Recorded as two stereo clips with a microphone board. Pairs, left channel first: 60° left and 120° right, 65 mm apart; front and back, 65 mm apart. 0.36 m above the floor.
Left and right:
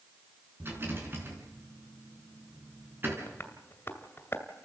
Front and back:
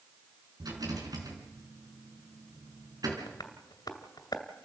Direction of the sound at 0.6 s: 175° right.